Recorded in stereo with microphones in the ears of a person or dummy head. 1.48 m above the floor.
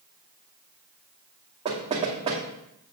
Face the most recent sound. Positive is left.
turn(degrees=-30)  # may be behind; listen again after turning